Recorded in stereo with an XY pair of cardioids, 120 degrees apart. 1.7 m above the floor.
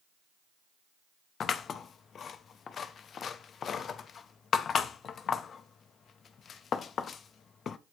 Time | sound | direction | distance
1.4 | scissors | 45° left | 0.5 m